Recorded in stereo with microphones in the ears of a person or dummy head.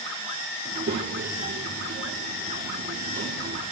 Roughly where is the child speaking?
Right.